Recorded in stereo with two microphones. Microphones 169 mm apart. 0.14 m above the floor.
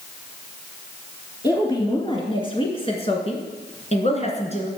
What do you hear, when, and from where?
1.4 s a woman speaking: 25° left (ahead or behind), 2 m; by 4.7 s 40° left (ahead or behind), 1.9 m